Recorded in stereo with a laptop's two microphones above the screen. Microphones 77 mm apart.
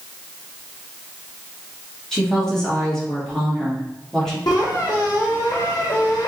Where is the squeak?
45° left (ahead or behind), 1.1 m.